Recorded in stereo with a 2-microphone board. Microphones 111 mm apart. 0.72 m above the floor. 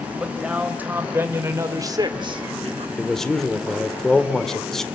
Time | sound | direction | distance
0.2 | a man speaking | 10° right (ahead or behind) | 3.5 m
3.0 | a man speaking | 5° left (ahead or behind) | 1.9 m